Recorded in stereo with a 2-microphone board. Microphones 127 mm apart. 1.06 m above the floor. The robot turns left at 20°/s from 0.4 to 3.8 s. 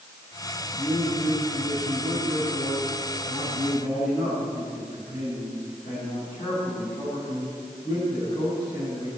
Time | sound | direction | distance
0.7 | a man speaking | 120° left | 7 m